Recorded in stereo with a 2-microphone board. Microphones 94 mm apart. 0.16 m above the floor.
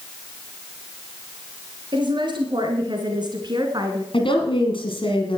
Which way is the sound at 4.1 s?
65° left (ahead or behind).